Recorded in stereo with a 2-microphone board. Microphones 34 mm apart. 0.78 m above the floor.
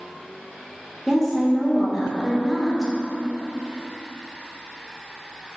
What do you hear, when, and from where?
1.1 s a woman speaking: centre (ahead or behind), 0.7 m